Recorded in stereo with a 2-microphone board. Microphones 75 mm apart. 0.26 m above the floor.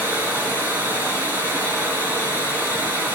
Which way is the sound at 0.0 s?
30° right (ahead or behind).